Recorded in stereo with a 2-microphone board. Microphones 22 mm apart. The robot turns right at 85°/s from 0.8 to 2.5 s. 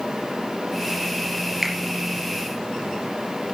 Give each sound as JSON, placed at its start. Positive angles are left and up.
{"t": 1.6, "sound": "a finger snap", "side_deg": -10, "distance_m": 3.0}